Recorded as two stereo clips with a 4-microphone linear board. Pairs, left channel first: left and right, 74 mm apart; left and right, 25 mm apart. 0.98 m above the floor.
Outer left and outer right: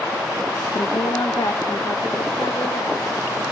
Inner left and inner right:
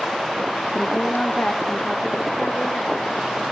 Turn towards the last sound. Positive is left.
turn(degrees=85)